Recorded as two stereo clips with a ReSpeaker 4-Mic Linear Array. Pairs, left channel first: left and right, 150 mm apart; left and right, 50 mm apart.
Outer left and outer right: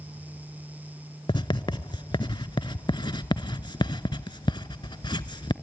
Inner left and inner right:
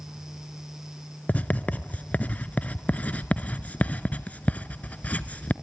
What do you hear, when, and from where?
1.3 s writing: 35° left (ahead or behind), 0.7 m